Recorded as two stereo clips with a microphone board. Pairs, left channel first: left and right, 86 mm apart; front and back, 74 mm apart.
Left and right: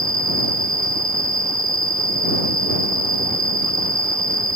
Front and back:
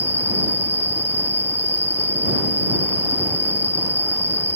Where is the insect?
55° right.